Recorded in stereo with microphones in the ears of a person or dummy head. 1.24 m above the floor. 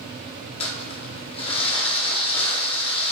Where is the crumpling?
25° left (ahead or behind), 0.6 m.